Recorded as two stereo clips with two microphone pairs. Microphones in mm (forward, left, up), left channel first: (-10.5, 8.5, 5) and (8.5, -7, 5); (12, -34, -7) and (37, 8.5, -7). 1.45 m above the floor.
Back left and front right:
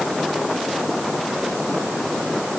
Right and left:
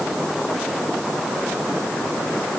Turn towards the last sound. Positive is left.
No sound to turn to.